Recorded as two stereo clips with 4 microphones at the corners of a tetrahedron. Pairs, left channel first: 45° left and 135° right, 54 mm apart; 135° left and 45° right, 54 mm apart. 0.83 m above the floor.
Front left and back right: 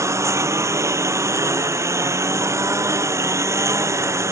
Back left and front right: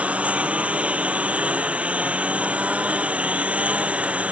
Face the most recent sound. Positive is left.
turn(degrees=-110)